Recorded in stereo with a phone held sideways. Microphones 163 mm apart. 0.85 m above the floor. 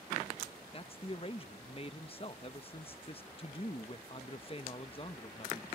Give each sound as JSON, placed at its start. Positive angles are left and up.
{"t": 0.7, "sound": "a man speaking", "side_deg": 35}